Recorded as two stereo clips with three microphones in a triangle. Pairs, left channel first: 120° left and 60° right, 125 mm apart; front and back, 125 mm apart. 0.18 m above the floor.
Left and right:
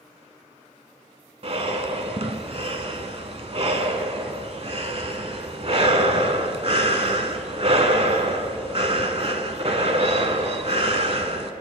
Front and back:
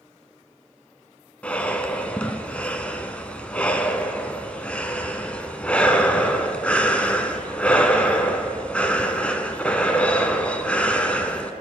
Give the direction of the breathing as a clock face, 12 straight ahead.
3 o'clock.